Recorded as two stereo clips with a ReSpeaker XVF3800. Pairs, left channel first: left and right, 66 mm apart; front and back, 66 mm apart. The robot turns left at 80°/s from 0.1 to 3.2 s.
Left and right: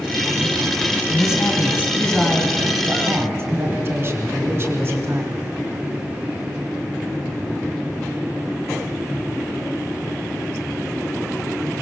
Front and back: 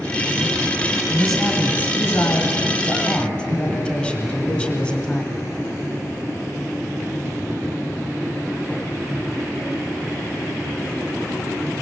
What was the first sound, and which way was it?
A man speaking, 95° left.